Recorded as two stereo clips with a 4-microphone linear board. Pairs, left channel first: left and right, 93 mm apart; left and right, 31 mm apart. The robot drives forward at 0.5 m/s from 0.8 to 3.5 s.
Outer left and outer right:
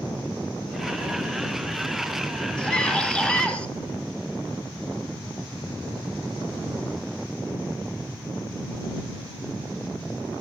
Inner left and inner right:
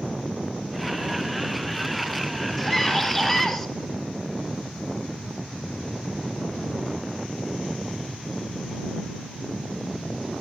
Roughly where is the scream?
Centre.